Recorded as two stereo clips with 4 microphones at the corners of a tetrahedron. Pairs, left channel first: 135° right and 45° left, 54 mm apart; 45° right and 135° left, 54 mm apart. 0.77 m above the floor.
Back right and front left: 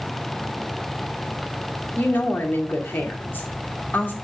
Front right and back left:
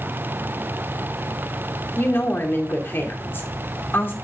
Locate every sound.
2.0 s a woman speaking: 85° right, 2 m